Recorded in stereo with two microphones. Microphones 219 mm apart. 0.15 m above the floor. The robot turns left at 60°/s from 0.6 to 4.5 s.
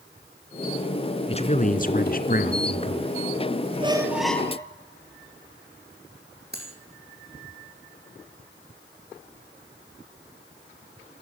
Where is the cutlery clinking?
50° right (ahead or behind), 5 m.